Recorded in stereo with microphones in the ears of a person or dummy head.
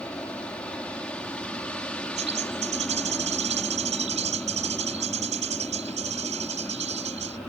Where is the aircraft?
10° left (ahead or behind).